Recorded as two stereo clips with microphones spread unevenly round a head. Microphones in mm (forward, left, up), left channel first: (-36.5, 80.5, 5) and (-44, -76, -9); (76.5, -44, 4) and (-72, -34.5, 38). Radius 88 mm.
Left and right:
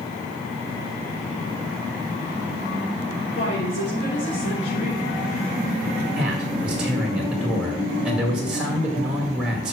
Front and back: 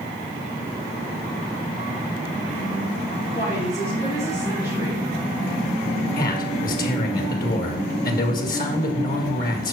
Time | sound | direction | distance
3.4 | a woman speaking | 75° left | 3 m
6.2 | a man speaking | 10° right | 2.0 m